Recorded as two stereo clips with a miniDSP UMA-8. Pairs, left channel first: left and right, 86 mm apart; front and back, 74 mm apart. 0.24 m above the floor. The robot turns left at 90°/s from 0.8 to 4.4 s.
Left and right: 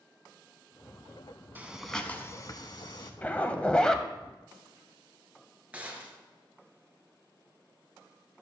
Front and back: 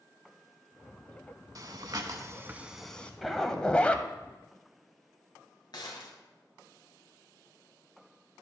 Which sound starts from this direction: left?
A zipper, at 3.2 s.